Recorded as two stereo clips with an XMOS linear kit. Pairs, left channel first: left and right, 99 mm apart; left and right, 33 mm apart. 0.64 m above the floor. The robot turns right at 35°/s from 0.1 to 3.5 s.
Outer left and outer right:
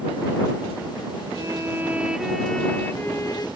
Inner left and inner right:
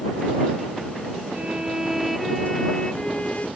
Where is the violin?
35° right; by 3.5 s 40° left.